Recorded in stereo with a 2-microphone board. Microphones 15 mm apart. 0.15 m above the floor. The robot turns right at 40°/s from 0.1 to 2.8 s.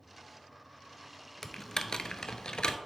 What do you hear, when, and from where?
1.4 s typing on a keyboard: 30° left (ahead or behind), 0.5 m; by 2.8 s 70° left (ahead or behind), 0.5 m